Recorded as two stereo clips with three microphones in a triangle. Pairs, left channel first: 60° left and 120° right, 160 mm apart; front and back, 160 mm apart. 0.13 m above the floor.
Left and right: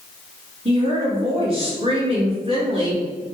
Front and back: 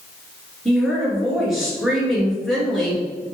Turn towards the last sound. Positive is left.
turn(degrees=-90)